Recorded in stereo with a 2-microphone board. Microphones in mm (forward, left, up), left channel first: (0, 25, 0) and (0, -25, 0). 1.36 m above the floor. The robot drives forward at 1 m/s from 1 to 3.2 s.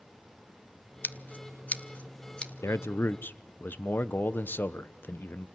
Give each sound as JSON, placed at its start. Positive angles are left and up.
{"t": 1.0, "sound": "scissors", "side_deg": 40, "distance_m": 1.0}
{"t": 2.6, "sound": "a man speaking", "side_deg": 65, "distance_m": 0.7}